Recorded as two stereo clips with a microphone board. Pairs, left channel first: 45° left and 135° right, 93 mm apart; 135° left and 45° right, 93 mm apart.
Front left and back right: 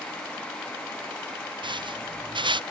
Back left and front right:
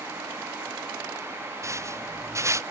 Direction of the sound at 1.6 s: 105° right.